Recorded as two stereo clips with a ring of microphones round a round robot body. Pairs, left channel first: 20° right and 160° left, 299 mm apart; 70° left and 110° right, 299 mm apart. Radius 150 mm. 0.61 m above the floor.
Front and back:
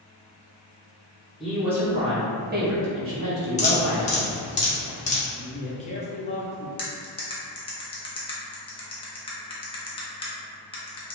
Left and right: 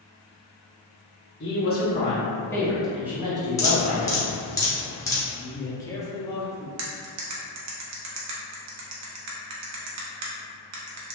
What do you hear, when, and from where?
1.4 s a woman speaking: 65° left, 0.9 m; by 4.2 s 175° right, 1.4 m
3.6 s dripping: straight ahead, 0.8 m
5.3 s a man speaking: 5° left, 0.6 m
6.8 s cutlery clinking: 90° right, 0.6 m